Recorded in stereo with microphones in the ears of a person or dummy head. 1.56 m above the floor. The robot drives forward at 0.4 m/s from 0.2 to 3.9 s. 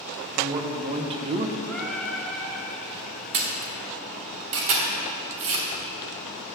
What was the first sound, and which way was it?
A man speaking, 25° right (ahead or behind).